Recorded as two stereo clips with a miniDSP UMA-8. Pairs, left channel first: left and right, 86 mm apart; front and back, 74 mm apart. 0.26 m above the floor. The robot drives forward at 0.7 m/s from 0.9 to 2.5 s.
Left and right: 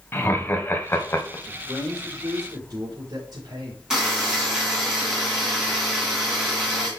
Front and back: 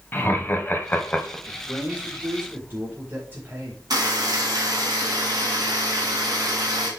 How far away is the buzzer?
About 2.5 m.